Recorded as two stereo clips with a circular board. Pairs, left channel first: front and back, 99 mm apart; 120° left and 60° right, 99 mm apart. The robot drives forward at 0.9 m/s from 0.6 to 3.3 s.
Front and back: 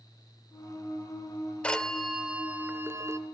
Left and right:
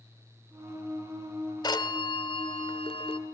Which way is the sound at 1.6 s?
80° left.